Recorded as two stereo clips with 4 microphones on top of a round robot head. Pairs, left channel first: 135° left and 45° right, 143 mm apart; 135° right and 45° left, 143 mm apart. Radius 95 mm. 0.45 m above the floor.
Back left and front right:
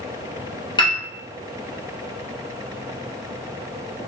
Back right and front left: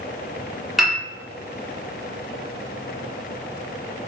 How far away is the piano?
About 1.4 m.